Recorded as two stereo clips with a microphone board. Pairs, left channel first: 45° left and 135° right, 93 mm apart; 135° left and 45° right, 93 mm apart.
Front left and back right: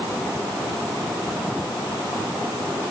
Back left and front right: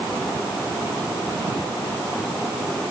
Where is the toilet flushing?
No toilet flushing in this recording.